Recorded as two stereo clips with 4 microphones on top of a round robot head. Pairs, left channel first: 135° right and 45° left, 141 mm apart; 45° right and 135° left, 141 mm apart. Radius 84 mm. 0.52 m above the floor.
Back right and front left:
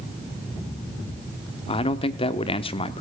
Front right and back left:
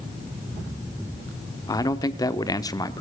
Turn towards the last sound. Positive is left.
turn(degrees=-100)